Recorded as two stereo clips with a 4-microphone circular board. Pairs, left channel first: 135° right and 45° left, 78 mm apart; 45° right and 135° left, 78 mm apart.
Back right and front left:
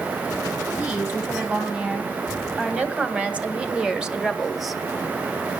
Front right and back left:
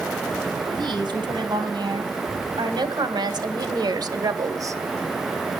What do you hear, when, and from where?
0.7 s a woman speaking: 110° left, 3 m; by 4.8 s 140° left, 0.8 m